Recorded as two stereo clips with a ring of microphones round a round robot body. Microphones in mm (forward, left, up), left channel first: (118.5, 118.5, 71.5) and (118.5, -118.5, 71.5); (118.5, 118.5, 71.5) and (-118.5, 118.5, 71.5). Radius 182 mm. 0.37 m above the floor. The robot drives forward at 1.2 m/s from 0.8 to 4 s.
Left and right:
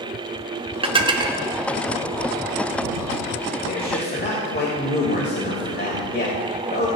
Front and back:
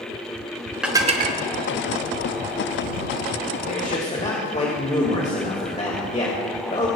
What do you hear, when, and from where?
0.8 s dishes clattering: 95° right, 0.8 m; by 1.4 s 160° right, 1.1 m
3.7 s a man speaking: 45° left, 2.5 m; by 6.9 s 55° left, 2.5 m